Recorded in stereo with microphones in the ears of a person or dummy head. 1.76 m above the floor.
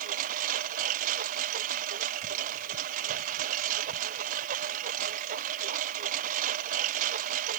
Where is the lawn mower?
50° right (ahead or behind).